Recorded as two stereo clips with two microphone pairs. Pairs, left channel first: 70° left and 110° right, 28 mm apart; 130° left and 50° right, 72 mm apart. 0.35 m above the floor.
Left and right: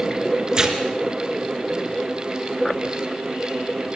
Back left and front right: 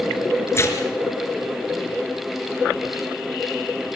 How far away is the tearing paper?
About 3 m.